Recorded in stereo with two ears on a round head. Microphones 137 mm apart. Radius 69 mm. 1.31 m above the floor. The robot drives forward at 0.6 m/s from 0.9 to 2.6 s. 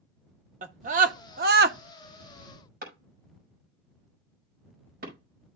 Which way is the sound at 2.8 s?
65° right (ahead or behind).